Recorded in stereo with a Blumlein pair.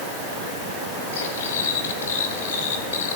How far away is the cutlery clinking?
About 5.5 m.